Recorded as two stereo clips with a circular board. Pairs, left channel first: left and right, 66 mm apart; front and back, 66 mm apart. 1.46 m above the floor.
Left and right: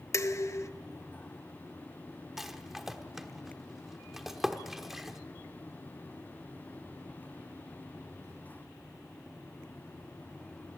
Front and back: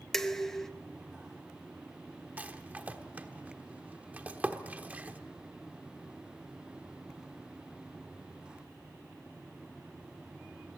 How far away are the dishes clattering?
About 0.8 m.